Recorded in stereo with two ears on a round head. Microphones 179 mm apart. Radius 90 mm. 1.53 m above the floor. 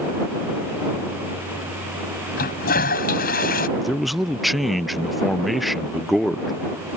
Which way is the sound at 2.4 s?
45° left (ahead or behind).